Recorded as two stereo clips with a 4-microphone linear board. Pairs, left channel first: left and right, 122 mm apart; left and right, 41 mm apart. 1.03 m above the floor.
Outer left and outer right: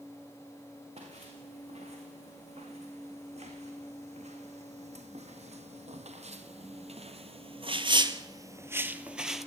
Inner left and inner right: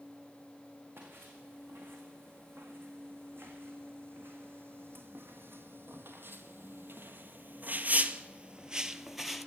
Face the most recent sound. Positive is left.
turn(degrees=0)  # may be behind; listen again after turning